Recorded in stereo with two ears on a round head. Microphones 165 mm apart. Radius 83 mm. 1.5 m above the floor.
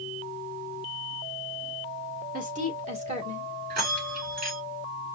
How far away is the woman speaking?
About 2.5 m.